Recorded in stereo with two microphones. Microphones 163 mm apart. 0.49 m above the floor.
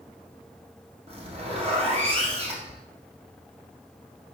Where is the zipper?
35° right (ahead or behind), 2 m.